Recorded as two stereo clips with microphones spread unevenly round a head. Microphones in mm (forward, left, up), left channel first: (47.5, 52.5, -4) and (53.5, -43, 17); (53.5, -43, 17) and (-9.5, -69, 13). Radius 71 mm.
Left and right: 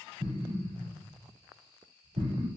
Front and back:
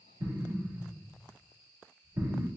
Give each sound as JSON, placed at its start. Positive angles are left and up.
{"t": 0.2, "sound": "an explosion", "azimuth_deg": -110, "distance_m": 0.9}